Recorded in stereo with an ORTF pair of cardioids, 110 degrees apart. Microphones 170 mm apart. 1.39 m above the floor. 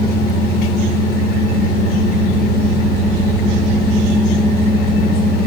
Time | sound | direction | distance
0.0 | a machine running | 65° left | 1.4 m